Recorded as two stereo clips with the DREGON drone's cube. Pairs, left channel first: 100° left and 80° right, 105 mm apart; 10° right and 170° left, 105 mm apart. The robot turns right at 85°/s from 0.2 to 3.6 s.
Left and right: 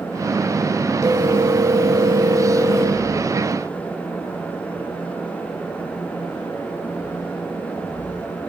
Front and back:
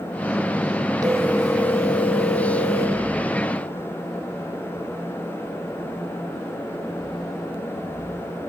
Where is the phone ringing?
140° right, 1.5 m; by 3.0 s 30° left, 1.5 m.